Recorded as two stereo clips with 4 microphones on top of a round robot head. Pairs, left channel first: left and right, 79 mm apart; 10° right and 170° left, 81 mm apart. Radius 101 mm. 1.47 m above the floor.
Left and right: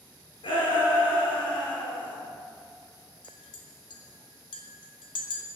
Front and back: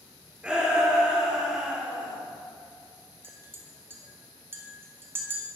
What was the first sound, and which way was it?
A shout, 95° left.